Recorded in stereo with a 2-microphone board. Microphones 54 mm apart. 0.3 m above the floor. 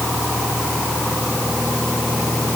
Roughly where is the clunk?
I don't hear a clunk.